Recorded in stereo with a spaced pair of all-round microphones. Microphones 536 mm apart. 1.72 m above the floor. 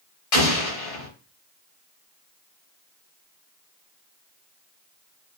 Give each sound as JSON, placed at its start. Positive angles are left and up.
{"t": 0.3, "sound": "an explosion", "side_deg": 85, "distance_m": 0.8}